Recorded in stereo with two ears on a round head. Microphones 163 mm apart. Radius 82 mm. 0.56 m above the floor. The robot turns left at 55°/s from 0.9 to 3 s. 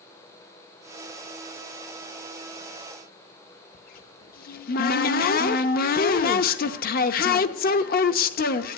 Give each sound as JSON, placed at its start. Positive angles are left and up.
{"t": 3.7, "sound": "a cupboard door", "side_deg": 55, "distance_m": 0.7}